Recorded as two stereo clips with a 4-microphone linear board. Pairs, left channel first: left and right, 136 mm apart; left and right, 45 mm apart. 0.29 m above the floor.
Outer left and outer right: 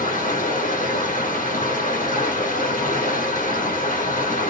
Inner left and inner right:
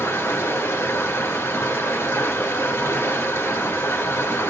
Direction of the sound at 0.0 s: 80° left.